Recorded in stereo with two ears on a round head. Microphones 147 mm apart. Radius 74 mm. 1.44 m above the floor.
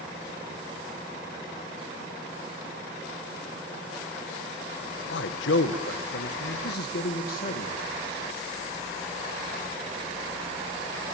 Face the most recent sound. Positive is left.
turn(degrees=50)  # may be behind; listen again after turning